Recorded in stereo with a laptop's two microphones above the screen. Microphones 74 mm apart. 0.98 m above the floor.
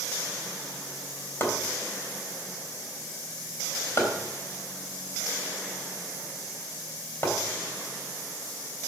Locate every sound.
1.4 s chopping: 35° left (ahead or behind), 3.5 m